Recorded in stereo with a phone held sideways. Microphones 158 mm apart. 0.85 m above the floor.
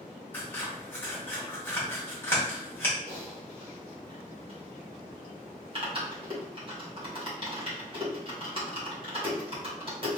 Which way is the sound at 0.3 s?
15° left (ahead or behind).